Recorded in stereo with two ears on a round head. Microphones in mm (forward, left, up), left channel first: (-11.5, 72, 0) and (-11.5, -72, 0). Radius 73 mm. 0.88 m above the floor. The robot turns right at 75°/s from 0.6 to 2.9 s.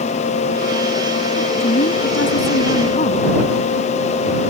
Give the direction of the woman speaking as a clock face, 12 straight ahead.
11 o'clock.